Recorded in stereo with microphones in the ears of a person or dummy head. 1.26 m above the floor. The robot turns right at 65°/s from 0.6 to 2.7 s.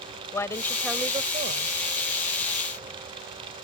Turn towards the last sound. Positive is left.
turn(degrees=-55)